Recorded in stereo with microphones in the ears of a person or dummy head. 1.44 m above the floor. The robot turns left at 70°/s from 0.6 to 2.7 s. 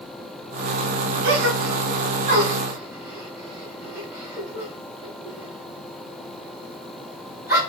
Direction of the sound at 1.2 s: 55° right (ahead or behind).